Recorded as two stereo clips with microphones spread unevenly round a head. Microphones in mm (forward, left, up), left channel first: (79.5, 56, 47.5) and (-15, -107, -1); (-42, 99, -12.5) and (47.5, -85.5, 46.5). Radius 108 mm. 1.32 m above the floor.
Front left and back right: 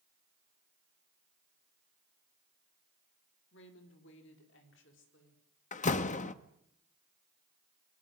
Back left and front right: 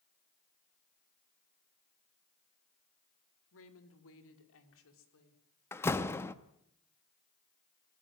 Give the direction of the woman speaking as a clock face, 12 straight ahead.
9 o'clock.